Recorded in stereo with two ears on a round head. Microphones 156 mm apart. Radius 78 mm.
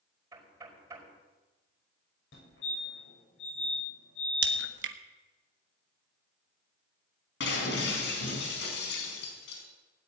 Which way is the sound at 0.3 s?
20° right (ahead or behind).